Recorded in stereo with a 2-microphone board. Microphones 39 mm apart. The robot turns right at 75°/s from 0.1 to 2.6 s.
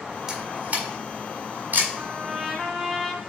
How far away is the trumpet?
About 1.3 m.